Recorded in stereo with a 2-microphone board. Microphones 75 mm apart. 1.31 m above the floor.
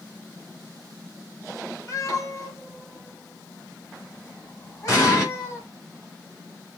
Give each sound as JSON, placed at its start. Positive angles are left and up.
{"t": 1.9, "sound": "a cat meowing", "side_deg": 45, "distance_m": 1.5}
{"t": 4.9, "sound": "an explosion", "side_deg": 35, "distance_m": 3.0}